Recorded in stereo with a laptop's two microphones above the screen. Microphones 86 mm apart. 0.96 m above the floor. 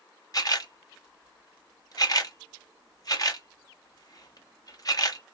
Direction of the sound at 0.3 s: 45° left (ahead or behind).